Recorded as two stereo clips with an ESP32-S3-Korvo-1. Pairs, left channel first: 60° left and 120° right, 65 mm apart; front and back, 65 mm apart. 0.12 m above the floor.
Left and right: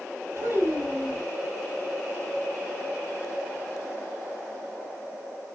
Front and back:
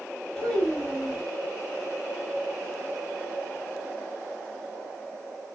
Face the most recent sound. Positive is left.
turn(degrees=-80)